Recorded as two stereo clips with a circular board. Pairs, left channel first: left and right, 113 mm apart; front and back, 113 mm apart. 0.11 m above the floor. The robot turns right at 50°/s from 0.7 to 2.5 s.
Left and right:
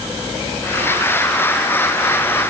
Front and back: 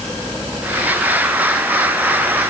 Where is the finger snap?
I don't hear a finger snap.